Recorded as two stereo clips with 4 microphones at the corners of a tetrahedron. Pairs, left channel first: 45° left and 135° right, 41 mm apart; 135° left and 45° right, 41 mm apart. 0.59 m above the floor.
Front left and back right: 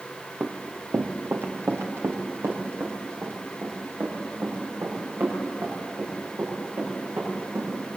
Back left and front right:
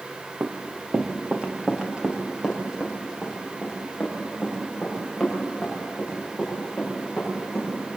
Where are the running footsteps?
85° right, 2 m; by 7.7 s 135° right, 12 m.